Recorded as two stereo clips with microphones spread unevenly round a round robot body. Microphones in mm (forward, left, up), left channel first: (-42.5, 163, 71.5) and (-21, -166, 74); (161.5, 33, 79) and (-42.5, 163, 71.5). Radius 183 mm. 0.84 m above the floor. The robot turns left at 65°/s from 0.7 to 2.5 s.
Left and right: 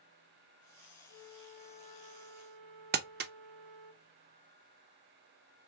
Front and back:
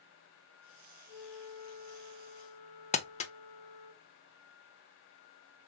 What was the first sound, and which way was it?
A flute, 25° right.